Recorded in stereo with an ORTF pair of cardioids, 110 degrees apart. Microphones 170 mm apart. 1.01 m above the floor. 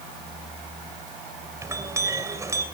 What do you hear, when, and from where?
1.6 s a clink: 15° right, 3.5 m